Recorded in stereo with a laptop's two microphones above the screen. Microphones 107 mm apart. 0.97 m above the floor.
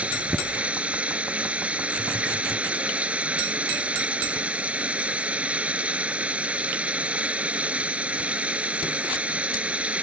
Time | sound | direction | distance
0.0 | running water | 15° right (ahead or behind) | ?